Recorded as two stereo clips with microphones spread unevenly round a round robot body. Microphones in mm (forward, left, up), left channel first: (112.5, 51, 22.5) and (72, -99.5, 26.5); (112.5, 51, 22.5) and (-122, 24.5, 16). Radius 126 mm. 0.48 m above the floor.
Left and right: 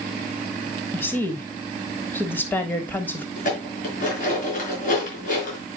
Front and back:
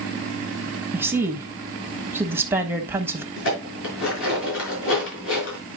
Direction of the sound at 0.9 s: 125° left.